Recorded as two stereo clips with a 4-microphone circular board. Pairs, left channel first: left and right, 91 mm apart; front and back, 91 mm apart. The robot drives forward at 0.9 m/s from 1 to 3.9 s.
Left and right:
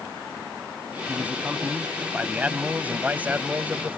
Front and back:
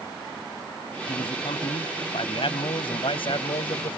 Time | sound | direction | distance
1.1 | a man speaking | 15° right | ?